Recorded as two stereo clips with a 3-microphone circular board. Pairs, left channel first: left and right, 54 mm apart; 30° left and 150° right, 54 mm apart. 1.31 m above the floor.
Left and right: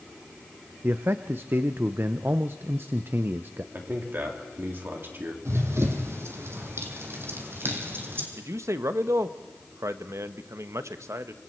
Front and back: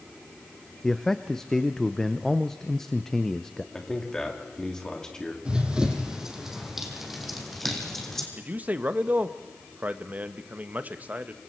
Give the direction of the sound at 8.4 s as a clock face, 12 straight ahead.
3 o'clock.